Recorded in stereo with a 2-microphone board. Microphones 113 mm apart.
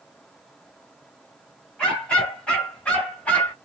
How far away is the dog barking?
About 3 m.